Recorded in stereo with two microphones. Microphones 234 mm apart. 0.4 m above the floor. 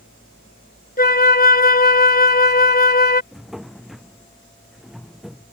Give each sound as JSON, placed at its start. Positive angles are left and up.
{"t": 1.0, "sound": "a flute", "side_deg": 40}
{"t": 3.3, "sound": "a drawer", "side_deg": 0}